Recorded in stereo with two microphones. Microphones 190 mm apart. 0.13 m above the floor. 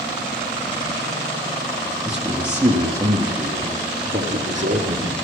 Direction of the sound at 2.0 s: 5° right (ahead or behind).